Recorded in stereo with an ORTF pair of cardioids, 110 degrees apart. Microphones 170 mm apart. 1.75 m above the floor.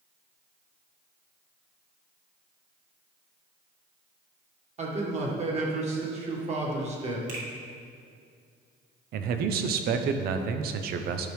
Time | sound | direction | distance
4.8 | a man speaking | 40° right | 1.9 m
7.3 | a finger snap | 50° right | 2 m
9.1 | a man speaking | 70° right | 0.7 m